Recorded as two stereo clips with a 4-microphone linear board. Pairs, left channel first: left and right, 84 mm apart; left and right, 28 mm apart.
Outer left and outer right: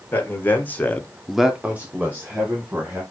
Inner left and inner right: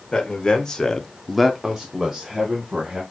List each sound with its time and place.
0.1 s a man speaking: 25° left (ahead or behind), 1.6 m; by 3.0 s 20° right (ahead or behind), 2 m